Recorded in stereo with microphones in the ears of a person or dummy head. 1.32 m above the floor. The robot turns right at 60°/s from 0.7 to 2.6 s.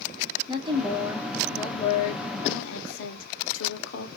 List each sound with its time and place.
0.5 s a woman speaking: 30° right, 0.9 m; by 4.1 s 85° left, 0.9 m